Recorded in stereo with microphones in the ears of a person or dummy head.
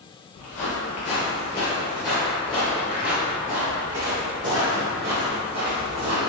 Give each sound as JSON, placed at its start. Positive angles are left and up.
{"t": 0.3, "sound": "footsteps", "side_deg": 35, "distance_m": 1.8}